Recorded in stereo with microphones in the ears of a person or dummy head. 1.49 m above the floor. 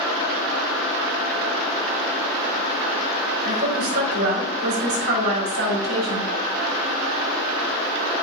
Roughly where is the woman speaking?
Right.